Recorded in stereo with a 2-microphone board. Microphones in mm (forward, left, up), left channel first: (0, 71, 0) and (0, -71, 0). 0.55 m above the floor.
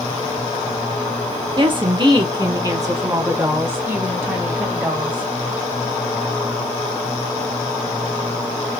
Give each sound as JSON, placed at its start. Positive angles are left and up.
{"t": 1.6, "sound": "a woman speaking", "side_deg": -40, "distance_m": 1.0}